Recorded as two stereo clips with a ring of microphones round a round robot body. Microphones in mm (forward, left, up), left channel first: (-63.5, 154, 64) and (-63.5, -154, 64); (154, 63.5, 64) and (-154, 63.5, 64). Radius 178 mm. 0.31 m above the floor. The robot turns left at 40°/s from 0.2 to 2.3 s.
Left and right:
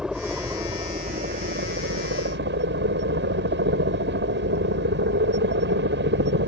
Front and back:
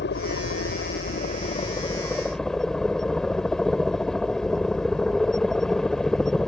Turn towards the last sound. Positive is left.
turn(degrees=-85)